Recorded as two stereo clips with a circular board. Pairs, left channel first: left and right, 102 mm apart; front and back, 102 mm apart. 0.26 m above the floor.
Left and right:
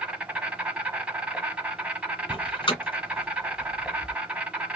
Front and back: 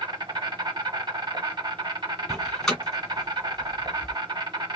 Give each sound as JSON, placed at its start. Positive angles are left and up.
{"t": 0.0, "sound": "an insect", "azimuth_deg": -165, "distance_m": 1.2}
{"t": 2.3, "sound": "a door slam", "azimuth_deg": 85, "distance_m": 1.6}